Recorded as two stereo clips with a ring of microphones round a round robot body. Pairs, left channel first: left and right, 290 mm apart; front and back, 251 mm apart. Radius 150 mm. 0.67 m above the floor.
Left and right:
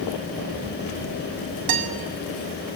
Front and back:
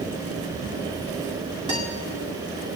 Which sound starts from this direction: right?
A guitar, at 1.7 s.